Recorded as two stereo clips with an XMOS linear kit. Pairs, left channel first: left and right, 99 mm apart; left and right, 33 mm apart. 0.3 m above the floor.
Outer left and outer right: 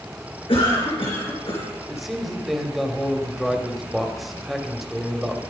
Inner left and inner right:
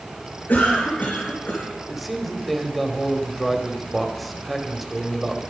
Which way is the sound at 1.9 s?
Centre (ahead or behind).